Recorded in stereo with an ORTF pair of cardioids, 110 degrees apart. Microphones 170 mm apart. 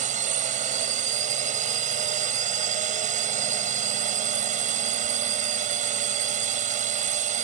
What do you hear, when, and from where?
0.0 s a drone: 50° right